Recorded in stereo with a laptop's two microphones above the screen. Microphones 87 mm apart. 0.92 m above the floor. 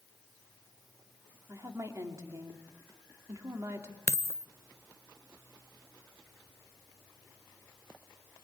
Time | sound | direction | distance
1.5 | a woman speaking | 35° right (ahead or behind) | 2.5 m
4.1 | a dropped coin | 30° left (ahead or behind) | 0.7 m